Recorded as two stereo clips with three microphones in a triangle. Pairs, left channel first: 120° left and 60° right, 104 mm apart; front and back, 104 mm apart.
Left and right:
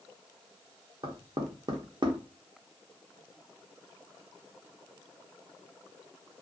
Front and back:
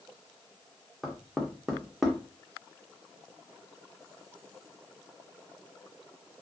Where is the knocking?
95° right, 0.6 m.